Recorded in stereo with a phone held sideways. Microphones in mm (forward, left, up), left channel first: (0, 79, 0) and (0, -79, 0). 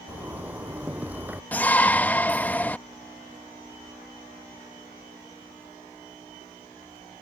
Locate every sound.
0.1 s a zipper: 10° right (ahead or behind)
1.5 s a shout: 10° left (ahead or behind)